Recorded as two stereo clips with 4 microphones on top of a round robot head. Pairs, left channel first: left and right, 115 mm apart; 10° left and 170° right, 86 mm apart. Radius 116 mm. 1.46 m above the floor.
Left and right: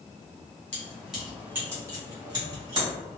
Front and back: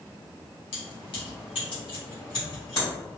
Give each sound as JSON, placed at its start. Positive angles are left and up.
{"t": 0.7, "sound": "keys jangling", "azimuth_deg": 15, "distance_m": 1.0}